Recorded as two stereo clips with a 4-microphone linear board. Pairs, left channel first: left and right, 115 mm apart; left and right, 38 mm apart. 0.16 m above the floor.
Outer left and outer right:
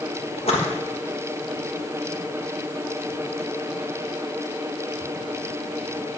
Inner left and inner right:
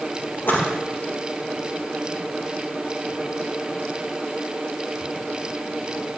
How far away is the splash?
About 3 m.